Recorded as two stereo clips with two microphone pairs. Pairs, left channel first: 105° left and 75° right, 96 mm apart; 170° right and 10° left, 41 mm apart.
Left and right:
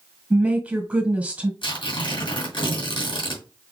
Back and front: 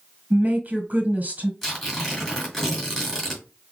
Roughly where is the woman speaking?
Ahead.